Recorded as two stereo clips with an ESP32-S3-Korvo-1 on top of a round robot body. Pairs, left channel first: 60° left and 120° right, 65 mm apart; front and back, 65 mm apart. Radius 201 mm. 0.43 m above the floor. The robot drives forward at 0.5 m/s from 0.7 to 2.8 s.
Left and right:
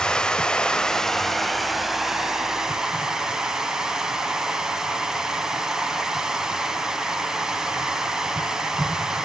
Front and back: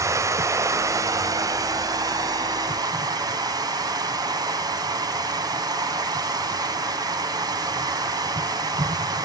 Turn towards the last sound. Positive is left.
turn(degrees=160)